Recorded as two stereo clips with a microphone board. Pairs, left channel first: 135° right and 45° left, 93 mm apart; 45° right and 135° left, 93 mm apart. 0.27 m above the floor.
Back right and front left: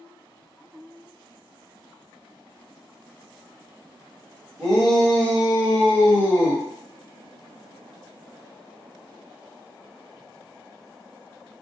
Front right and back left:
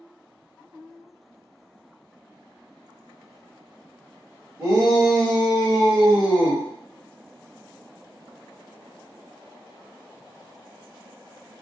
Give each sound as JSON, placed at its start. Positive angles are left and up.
{"t": 4.6, "sound": "a shout", "azimuth_deg": 130, "distance_m": 1.4}